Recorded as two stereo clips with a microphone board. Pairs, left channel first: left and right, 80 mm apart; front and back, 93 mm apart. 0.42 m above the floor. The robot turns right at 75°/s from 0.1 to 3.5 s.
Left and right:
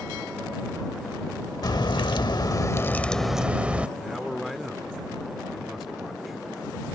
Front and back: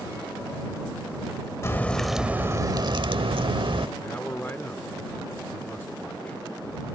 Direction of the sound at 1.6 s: 55° left.